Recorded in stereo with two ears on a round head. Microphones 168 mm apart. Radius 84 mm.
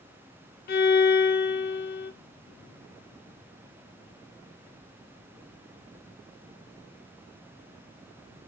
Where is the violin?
55° left (ahead or behind), 0.9 m.